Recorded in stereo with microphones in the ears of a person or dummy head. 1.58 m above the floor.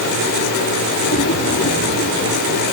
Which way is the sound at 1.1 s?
70° left (ahead or behind).